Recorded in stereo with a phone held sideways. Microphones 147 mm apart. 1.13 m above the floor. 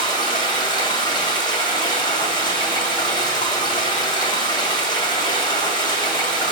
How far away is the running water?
About 2 m.